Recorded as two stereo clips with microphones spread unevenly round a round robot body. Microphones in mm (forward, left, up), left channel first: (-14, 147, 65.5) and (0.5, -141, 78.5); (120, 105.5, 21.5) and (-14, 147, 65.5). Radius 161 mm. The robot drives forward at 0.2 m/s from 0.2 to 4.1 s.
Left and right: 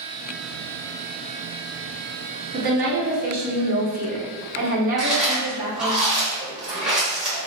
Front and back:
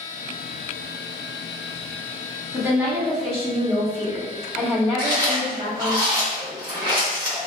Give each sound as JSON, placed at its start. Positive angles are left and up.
{"t": 2.5, "sound": "a woman speaking", "azimuth_deg": -110, "distance_m": 1.1}
{"t": 5.0, "sound": "chewing", "azimuth_deg": -175, "distance_m": 1.1}